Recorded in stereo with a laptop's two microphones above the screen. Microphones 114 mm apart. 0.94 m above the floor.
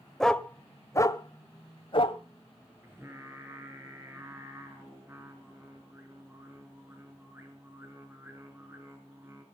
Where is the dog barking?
5° left (ahead or behind), 1.0 m; by 2.2 s 55° left (ahead or behind), 1.4 m.